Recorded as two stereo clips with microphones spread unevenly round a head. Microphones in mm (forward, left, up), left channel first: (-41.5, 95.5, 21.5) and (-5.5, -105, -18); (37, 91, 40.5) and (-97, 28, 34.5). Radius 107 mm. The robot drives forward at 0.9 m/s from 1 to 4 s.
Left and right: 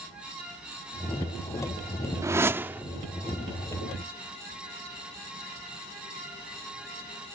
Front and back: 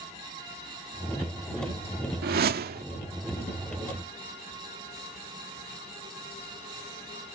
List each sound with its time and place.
2.2 s a whoosh: 160° right; by 2.9 s 165° right